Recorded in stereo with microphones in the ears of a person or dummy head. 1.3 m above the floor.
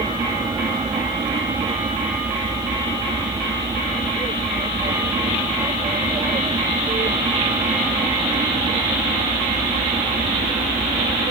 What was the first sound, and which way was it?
An aircraft, 15° right (ahead or behind).